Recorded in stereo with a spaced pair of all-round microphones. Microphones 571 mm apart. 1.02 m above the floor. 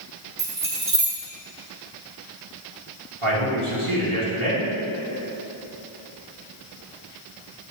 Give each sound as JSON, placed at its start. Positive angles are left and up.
{"t": 0.4, "sound": "keys jangling", "side_deg": -75, "distance_m": 1.6}
{"t": 3.2, "sound": "a man speaking", "side_deg": -70, "distance_m": 1.8}